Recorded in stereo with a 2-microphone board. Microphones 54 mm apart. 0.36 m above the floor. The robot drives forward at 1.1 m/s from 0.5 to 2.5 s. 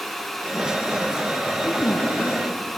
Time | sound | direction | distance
1.6 | a woman speaking | 70° left (ahead or behind) | 9.5 m